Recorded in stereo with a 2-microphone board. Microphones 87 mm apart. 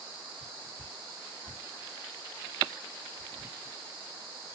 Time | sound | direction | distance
0.4 | whispering | 45° left (ahead or behind) | 3 m